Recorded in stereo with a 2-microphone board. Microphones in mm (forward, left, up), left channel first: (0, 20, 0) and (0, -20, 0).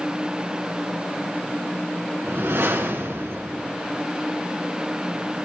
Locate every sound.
2.2 s a whoosh: 85° right, 2.5 m